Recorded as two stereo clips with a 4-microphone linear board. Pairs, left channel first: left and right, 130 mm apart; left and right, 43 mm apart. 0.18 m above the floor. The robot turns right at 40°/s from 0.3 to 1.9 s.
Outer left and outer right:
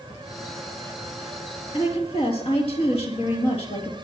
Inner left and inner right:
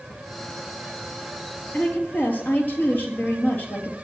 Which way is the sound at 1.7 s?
50° left (ahead or behind).